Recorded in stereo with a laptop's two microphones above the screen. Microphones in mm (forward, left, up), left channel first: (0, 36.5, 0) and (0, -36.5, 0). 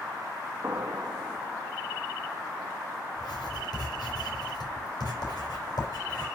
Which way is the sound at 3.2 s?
70° left (ahead or behind).